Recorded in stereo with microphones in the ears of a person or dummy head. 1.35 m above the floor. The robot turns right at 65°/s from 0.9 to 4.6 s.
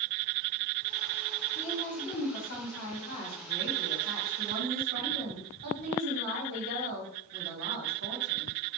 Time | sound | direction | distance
1.6 | a woman speaking | 30° left | 1.7 m